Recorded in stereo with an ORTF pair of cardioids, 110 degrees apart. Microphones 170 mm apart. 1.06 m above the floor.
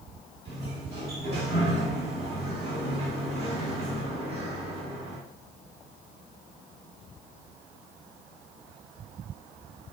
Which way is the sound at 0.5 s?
40° right.